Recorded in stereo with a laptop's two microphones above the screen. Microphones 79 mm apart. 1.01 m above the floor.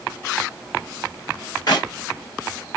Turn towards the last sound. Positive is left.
turn(degrees=55)  # may be behind; listen again after turning